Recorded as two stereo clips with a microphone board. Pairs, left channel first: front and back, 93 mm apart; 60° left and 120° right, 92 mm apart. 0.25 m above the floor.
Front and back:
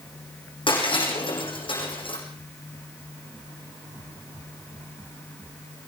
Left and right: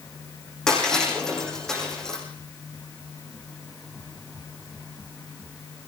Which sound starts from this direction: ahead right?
Breaking glass, at 0.7 s.